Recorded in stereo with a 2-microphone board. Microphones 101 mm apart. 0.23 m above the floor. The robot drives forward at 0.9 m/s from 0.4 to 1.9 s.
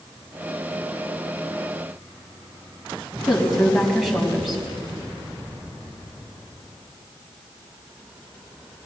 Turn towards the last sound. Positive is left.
turn(degrees=0)  # may be behind; listen again after turning